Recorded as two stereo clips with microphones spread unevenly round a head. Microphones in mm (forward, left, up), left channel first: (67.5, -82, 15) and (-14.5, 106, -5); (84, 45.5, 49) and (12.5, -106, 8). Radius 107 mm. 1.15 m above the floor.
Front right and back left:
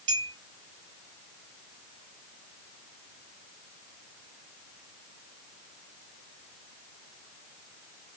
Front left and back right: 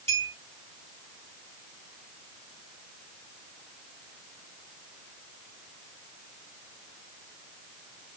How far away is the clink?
About 2.5 m.